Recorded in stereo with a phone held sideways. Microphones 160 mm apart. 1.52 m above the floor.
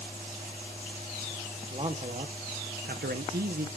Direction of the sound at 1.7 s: 35° right (ahead or behind).